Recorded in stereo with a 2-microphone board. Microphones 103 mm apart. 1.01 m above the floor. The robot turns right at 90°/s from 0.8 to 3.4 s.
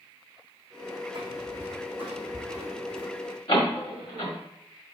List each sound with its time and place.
1.1 s footsteps: 45° right (ahead or behind), 3 m; by 3.1 s 5° left (ahead or behind), 2.5 m
3.5 s a door slam: 65° left (ahead or behind), 2.0 m